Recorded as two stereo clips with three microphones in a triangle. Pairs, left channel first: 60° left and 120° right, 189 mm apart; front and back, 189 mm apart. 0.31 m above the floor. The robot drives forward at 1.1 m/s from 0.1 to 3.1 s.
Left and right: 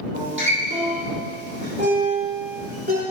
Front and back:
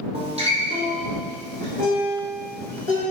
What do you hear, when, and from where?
0.1 s a guitar: 120° right, 4 m; by 3.0 s 145° right, 6 m